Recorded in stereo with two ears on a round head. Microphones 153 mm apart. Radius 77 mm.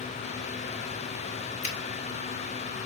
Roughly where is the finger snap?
Left.